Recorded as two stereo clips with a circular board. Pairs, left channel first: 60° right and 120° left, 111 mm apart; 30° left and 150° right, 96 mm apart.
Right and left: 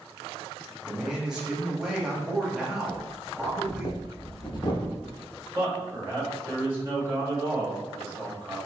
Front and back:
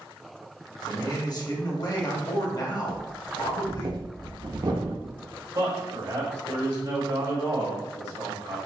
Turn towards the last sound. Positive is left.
turn(degrees=-170)